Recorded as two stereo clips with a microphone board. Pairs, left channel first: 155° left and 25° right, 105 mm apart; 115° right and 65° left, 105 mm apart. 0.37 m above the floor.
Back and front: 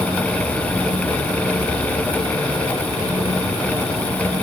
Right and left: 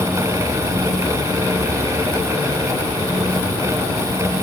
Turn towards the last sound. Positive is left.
No sound to turn to.